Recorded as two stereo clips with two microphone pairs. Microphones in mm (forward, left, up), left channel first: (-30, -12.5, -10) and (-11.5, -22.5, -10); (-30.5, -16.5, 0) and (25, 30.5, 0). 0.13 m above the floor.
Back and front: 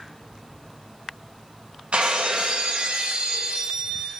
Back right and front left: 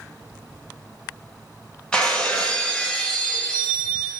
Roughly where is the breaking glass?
Ahead right.